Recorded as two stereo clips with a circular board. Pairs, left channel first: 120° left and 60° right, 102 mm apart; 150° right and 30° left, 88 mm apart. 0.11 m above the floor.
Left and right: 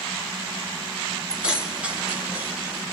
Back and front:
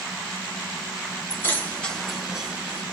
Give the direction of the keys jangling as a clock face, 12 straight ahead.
4 o'clock.